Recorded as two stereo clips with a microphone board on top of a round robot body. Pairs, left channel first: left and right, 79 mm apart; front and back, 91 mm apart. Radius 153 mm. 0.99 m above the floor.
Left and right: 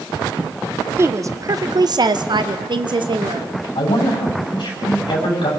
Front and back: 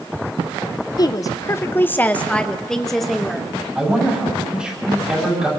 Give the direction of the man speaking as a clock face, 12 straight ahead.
9 o'clock.